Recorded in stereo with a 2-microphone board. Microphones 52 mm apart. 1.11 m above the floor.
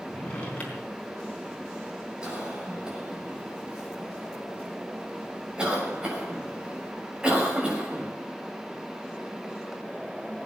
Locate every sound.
0.1 s a drawer: 25° left (ahead or behind), 4 m
2.2 s a cough: 20° right (ahead or behind), 6.5 m